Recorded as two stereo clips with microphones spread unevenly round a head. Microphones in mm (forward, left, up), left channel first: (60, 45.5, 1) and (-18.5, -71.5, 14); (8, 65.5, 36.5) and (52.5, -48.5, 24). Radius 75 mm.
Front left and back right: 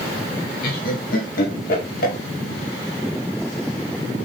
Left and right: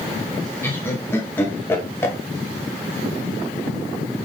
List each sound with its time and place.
0.6 s laughter: 40° left, 1.5 m